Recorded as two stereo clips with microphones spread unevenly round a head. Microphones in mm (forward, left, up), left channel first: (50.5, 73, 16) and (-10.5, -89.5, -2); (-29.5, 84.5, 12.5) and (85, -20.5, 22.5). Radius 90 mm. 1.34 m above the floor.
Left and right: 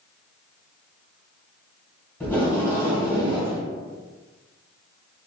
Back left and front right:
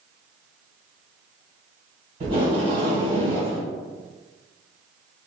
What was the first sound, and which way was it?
Tape being pulled, 5° right.